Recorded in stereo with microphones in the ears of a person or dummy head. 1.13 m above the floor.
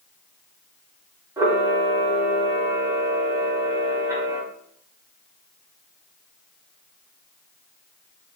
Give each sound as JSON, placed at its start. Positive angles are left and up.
{"t": 1.4, "sound": "a camera shutter", "side_deg": -15, "distance_m": 0.6}